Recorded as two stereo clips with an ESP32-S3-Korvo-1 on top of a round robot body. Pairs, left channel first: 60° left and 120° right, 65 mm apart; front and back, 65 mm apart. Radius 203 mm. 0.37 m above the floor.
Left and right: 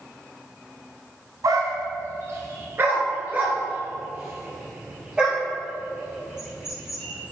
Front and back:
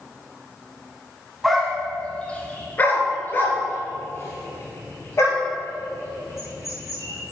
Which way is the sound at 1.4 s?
90° right.